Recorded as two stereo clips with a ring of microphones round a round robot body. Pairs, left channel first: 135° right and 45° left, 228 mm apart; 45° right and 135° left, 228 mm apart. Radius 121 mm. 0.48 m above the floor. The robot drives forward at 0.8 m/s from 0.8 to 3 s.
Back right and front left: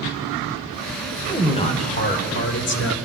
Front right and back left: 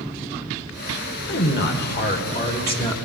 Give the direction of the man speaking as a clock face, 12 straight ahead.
2 o'clock.